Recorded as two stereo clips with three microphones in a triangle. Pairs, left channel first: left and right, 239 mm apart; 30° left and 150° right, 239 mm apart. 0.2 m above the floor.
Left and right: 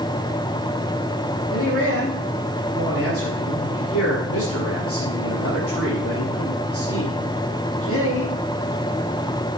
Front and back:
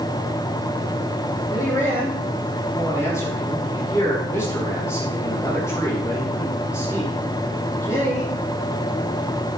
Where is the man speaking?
110° left, 7.5 m.